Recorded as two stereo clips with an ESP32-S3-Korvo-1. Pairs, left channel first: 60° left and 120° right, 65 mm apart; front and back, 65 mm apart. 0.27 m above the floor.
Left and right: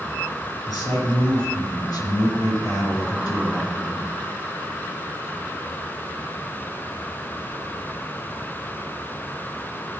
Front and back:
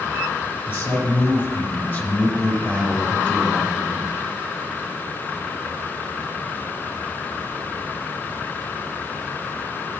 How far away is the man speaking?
About 4 m.